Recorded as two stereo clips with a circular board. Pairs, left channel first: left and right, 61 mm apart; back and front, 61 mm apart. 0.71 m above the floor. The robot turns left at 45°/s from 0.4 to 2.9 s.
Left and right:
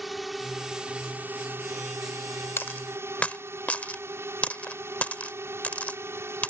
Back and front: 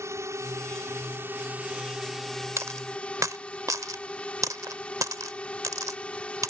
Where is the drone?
Straight ahead; by 6.5 s 115° right.